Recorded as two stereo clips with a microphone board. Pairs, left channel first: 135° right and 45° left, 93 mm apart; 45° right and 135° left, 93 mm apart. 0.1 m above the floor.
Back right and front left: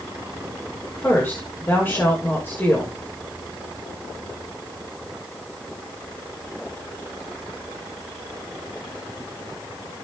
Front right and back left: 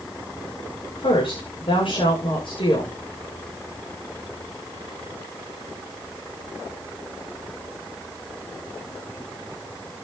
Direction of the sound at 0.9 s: 70° right.